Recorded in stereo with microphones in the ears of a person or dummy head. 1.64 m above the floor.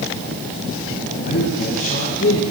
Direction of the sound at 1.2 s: 40° left (ahead or behind).